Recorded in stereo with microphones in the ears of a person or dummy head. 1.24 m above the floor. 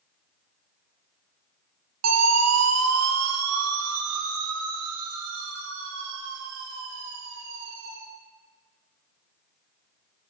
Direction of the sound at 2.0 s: 80° right.